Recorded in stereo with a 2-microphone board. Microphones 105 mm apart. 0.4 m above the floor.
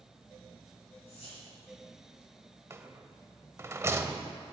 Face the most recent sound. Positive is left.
turn(degrees=-25)  # may be behind; listen again after turning